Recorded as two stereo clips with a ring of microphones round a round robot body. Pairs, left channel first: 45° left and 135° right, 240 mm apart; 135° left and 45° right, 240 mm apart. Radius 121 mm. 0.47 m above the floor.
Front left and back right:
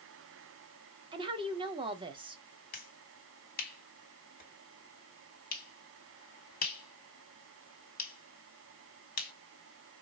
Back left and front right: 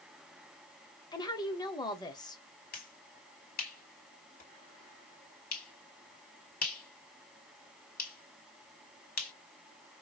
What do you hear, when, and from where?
1.1 s a woman speaking: 175° right, 1.0 m
2.7 s a finger snap: 90° left, 1.9 m